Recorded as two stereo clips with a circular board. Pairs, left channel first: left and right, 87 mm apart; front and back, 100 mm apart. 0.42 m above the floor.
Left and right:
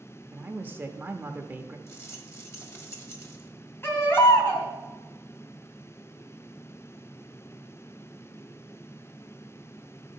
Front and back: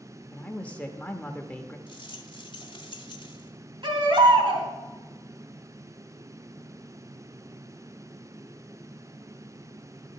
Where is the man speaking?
60° right, 1.0 m.